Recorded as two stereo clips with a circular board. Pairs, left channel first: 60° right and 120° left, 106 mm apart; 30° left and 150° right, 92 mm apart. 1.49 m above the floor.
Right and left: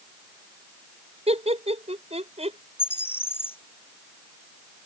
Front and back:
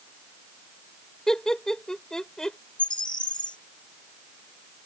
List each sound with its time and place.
1.3 s laughter: 115° left
2.8 s a bird: 5° left